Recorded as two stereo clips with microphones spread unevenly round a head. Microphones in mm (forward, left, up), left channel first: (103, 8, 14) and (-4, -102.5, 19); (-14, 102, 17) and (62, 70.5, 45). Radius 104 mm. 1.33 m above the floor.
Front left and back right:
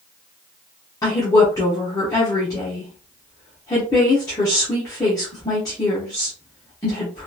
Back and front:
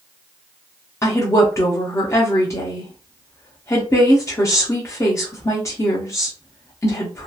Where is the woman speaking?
115° left, 0.8 m.